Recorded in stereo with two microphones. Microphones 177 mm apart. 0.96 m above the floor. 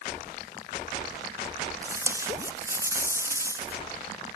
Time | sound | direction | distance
1.8 | tape being pulled | 15° right (ahead or behind) | 1.8 m